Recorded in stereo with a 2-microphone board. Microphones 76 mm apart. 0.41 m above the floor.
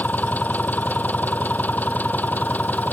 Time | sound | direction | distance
0.0 | an engine running | 20° left (ahead or behind) | ?